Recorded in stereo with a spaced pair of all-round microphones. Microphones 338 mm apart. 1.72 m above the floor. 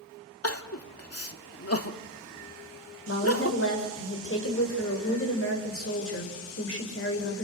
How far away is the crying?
About 1.6 m.